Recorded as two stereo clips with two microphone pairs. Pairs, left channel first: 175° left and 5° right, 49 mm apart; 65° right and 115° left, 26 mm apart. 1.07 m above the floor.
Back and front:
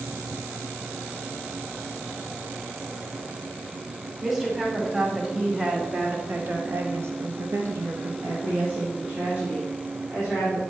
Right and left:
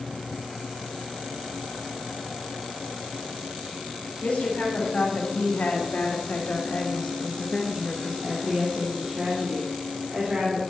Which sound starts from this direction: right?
A woman speaking, at 4.2 s.